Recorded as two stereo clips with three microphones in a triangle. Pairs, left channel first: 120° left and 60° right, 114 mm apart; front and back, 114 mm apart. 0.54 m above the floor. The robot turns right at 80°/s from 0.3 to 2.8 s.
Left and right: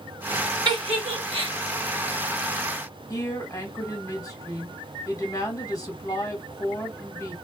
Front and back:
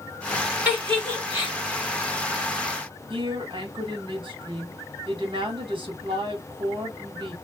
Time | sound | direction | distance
0.7 | a giggle | 105° right | 2.5 m
3.1 | a woman speaking | 170° left | 1.5 m